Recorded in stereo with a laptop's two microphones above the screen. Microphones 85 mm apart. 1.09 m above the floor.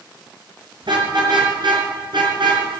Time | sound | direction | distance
0.8 | a car horn | 65° right (ahead or behind) | 6.5 m